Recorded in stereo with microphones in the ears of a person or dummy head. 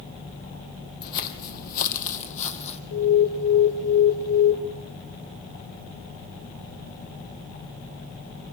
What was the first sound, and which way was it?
Footsteps, 50° left (ahead or behind).